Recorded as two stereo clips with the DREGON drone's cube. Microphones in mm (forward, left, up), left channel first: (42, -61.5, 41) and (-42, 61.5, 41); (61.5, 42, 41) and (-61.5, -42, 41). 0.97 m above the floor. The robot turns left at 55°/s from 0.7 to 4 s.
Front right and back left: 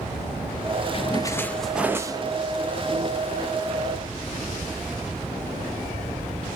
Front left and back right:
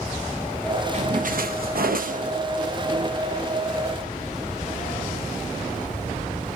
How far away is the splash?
About 0.5 m.